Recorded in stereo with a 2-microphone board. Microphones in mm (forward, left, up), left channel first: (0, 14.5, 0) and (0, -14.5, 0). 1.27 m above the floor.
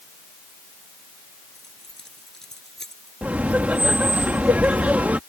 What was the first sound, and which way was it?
Keys jangling, 20° left (ahead or behind).